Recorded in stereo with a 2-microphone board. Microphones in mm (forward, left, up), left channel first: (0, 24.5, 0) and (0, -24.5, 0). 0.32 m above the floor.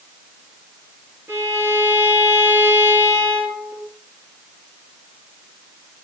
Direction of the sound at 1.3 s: 50° right (ahead or behind).